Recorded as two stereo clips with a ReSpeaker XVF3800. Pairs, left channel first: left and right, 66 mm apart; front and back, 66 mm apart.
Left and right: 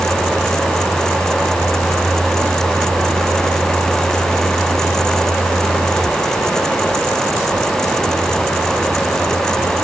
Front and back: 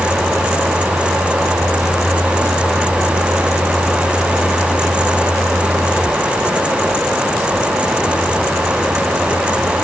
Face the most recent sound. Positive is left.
No sound to turn to.